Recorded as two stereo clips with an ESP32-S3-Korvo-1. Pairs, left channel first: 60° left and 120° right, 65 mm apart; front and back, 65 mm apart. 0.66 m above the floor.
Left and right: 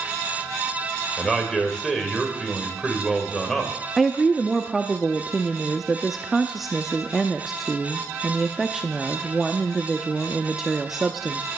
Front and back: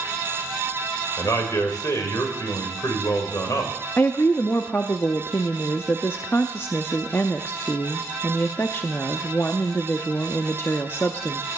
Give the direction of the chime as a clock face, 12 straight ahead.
No chime in this recording.